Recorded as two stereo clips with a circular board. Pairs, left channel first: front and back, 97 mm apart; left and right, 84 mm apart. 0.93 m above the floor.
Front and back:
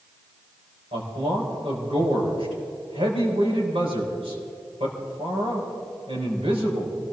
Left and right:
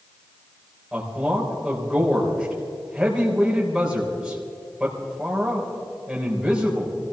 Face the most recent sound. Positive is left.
turn(degrees=-170)